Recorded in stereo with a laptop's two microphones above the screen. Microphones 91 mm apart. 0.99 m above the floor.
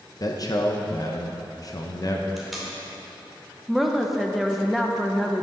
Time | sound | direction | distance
0.2 | a man speaking | 40° left (ahead or behind) | 0.8 m
2.4 | tape being pulled | centre (ahead or behind) | 2.5 m
3.7 | a woman speaking | centre (ahead or behind) | 0.7 m